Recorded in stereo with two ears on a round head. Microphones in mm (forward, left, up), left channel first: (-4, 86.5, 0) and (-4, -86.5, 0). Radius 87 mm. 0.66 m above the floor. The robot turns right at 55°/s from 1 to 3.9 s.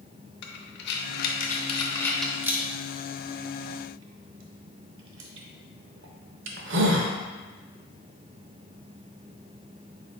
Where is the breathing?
60° left (ahead or behind), 0.6 m; by 7.1 s 65° right (ahead or behind), 0.6 m.